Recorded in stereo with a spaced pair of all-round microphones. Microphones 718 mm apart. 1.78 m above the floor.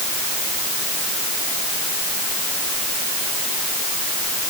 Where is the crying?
I don't hear crying.